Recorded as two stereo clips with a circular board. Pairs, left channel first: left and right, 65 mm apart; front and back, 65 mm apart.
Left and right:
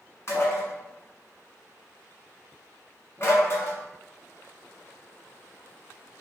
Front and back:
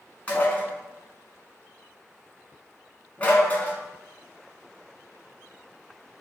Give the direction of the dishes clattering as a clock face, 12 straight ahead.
10 o'clock.